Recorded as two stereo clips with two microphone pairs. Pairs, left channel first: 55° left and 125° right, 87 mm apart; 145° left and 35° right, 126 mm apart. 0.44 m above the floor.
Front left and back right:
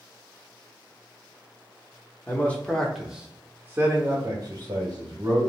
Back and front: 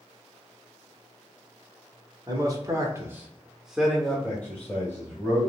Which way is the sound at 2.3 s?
Straight ahead.